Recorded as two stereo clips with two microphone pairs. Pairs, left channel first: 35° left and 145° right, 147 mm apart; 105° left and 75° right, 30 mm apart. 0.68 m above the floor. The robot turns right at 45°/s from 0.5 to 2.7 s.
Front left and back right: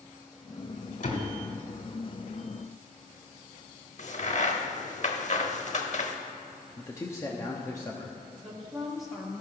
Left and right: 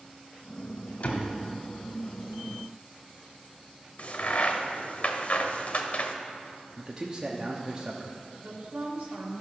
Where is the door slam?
65° left, 1.6 m; by 1.3 s 80° left, 1.6 m.